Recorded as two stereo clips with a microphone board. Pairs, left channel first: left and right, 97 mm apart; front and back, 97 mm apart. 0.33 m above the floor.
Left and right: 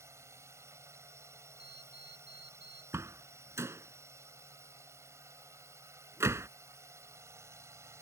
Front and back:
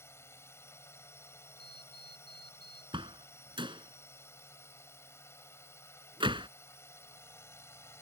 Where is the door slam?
150° right.